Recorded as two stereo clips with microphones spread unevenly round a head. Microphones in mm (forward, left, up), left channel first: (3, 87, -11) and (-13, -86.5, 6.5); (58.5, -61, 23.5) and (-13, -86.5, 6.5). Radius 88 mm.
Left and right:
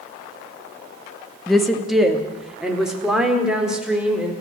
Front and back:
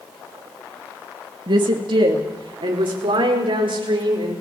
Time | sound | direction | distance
1.5 | a woman speaking | 175° left | 2.5 m